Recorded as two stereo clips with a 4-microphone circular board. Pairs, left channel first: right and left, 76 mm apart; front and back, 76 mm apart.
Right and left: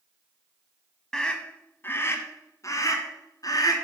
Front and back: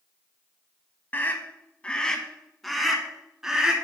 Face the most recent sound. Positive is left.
turn(degrees=-100)